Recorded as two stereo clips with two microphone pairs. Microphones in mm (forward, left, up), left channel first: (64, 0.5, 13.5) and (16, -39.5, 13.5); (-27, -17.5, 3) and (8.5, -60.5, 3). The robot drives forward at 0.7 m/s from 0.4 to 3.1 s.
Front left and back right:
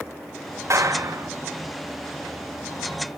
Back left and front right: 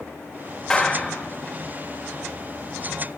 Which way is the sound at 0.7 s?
150° right.